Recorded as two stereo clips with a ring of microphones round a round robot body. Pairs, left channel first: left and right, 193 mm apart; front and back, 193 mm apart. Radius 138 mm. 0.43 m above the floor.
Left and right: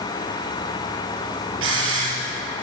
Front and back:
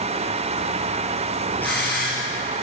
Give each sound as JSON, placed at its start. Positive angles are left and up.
{"t": 1.6, "sound": "a hiss", "azimuth_deg": -85, "distance_m": 7.5}